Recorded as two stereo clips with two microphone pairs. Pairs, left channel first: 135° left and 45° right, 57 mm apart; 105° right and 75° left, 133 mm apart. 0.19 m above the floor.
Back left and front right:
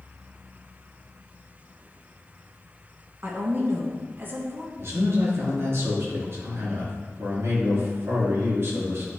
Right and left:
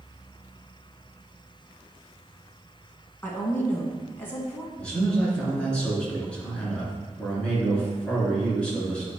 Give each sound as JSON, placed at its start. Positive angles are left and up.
{"t": 3.2, "sound": "a woman speaking", "azimuth_deg": -40, "distance_m": 1.3}
{"t": 4.8, "sound": "a man speaking", "azimuth_deg": -25, "distance_m": 3.0}